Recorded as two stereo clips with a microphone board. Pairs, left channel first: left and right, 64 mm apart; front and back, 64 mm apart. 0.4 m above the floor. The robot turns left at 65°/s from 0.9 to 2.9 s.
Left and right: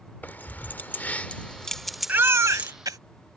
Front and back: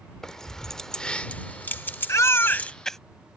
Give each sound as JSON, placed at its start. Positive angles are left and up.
{"t": 0.2, "sound": "keys jangling", "azimuth_deg": 70}
{"t": 2.1, "sound": "a baby crying", "azimuth_deg": -30}